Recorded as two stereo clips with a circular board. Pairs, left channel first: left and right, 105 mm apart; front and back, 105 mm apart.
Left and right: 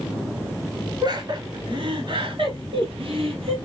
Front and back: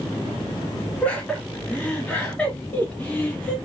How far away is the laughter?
About 1.7 m.